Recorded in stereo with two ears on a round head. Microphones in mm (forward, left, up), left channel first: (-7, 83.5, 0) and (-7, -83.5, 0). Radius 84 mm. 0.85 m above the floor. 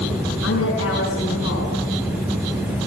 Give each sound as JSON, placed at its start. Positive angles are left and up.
{"t": 0.4, "sound": "a woman speaking", "side_deg": 80, "distance_m": 7.0}